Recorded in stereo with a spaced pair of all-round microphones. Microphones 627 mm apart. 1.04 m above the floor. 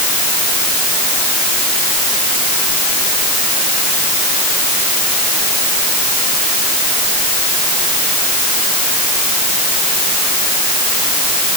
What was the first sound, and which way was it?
Only background noise.